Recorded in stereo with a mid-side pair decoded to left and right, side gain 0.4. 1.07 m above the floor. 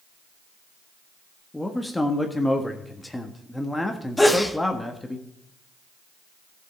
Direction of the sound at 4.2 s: 10° left.